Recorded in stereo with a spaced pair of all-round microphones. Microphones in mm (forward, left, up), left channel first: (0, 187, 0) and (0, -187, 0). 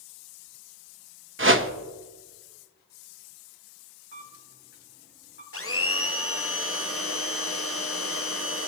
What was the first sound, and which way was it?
A whoosh, 35° right (ahead or behind).